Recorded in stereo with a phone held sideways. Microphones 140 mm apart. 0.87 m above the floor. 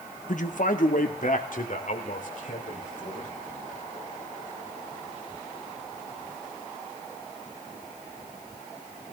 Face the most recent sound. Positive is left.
turn(degrees=65)  # may be behind; listen again after turning